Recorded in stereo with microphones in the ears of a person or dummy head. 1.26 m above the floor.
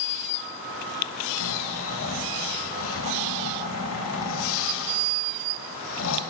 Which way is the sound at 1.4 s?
75° left (ahead or behind).